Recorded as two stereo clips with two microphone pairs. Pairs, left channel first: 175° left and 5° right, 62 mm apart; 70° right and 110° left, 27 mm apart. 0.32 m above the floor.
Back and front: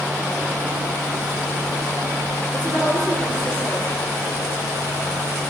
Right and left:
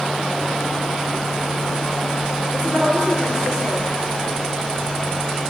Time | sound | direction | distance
2.5 | a woman speaking | 55° left | 5 m